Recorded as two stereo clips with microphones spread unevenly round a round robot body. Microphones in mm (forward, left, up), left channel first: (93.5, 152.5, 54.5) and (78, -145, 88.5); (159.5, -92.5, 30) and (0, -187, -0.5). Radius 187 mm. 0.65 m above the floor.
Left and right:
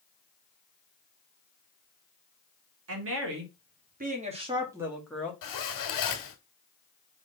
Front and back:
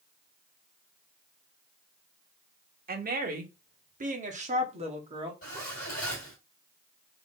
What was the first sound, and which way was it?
A woman speaking, 135° right.